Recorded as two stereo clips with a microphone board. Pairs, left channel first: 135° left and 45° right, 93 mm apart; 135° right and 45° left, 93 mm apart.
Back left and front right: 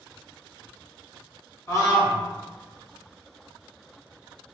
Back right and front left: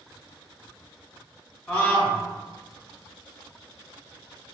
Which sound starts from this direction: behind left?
A scream, at 1.7 s.